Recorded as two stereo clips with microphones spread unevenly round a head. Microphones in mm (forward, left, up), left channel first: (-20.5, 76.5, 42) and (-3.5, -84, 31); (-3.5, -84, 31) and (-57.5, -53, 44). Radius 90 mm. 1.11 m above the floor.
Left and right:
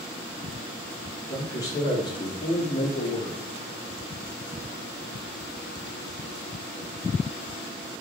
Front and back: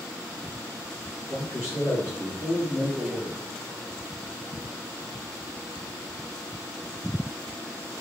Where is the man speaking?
20° left, 1.8 m; by 3.4 s 85° left, 1.0 m.